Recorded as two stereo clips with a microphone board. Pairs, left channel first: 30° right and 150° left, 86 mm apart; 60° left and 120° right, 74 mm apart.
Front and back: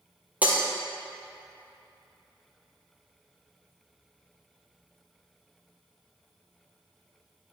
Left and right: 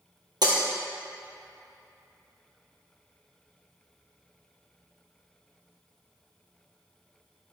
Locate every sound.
0.4 s breaking glass: 135° right, 1.4 m